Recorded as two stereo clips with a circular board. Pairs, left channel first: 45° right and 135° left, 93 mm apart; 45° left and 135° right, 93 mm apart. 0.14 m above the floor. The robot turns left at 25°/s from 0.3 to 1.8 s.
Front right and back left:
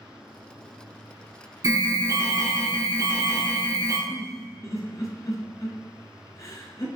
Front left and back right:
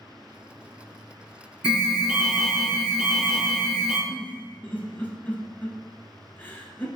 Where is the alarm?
155° left, 1.1 m; by 4.0 s 150° left, 1.1 m.